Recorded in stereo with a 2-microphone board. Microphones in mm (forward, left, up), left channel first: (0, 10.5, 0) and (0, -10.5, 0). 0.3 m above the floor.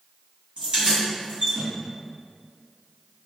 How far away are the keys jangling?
About 1.5 m.